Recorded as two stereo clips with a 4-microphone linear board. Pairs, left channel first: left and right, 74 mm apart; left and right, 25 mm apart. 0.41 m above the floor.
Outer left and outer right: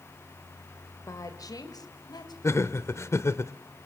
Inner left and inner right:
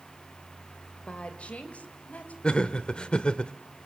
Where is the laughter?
40° left (ahead or behind), 1.0 m.